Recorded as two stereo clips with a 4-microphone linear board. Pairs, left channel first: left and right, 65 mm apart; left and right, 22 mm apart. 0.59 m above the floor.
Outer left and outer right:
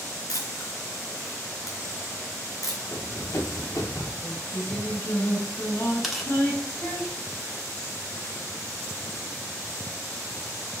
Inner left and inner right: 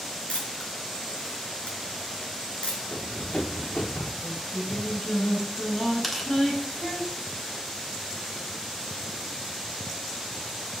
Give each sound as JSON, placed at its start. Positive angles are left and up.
{"t": 0.3, "sound": "a camera shutter", "side_deg": 60, "distance_m": 4.0}
{"t": 2.9, "sound": "running footsteps", "side_deg": 45, "distance_m": 4.0}
{"t": 4.2, "sound": "singing", "side_deg": 30, "distance_m": 3.0}
{"t": 6.0, "sound": "tearing paper", "side_deg": -5, "distance_m": 1.3}